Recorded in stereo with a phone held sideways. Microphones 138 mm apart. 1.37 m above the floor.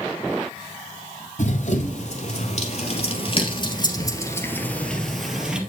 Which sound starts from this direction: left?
Running footsteps, at 1.4 s.